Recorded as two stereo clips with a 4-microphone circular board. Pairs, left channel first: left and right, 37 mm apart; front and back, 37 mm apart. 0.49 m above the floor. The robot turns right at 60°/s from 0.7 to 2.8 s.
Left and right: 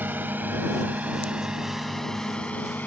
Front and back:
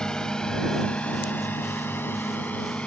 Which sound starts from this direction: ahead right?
A drone, at 0.0 s.